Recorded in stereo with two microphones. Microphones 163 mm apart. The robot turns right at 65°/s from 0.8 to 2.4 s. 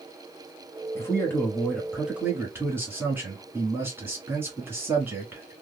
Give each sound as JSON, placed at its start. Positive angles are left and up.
{"t": 0.9, "sound": "a man speaking", "side_deg": 20, "distance_m": 1.4}